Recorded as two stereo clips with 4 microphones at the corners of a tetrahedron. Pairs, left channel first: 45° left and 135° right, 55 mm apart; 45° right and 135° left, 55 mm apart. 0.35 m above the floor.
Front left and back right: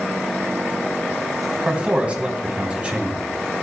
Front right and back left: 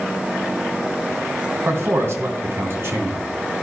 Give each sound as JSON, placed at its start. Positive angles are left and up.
{"t": 1.6, "sound": "a man speaking", "azimuth_deg": 160, "distance_m": 2.5}